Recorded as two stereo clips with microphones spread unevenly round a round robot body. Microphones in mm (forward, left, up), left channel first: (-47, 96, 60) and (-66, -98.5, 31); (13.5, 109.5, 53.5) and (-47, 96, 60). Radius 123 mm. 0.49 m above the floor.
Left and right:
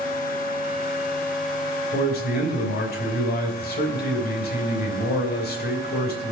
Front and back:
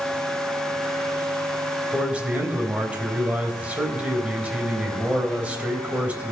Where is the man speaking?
125° left, 3 m.